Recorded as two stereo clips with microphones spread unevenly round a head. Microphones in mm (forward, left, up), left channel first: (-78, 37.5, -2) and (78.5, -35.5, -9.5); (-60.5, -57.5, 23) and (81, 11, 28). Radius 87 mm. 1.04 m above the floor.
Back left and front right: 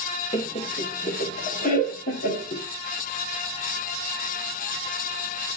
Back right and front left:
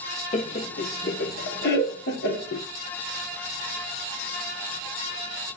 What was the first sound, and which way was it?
Laughter, 150° right.